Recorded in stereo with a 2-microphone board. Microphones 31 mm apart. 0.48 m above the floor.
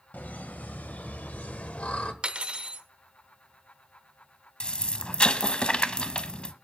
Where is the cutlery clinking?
35° right (ahead or behind), 0.8 m.